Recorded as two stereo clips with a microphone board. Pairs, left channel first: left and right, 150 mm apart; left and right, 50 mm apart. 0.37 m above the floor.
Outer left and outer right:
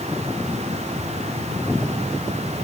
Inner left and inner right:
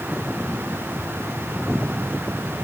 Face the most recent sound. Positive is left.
No sound to turn to.